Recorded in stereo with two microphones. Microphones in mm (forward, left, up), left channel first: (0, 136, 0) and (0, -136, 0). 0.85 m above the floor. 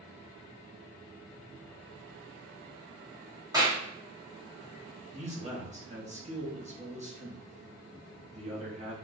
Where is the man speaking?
25° right (ahead or behind), 1.0 m.